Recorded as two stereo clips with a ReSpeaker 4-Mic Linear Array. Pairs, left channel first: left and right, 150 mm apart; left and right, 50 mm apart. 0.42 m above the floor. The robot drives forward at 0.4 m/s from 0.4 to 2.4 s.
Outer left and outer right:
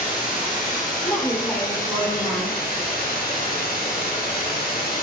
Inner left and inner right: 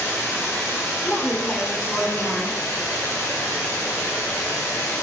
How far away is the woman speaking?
About 1.2 m.